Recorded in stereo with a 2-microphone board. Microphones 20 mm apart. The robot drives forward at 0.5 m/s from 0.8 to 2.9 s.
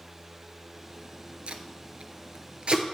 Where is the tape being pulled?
65° right (ahead or behind), 0.7 m; by 2.9 s 55° right (ahead or behind), 0.8 m.